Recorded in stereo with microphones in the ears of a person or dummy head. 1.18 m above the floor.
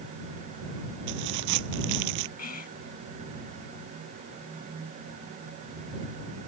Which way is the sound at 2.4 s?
50° left (ahead or behind).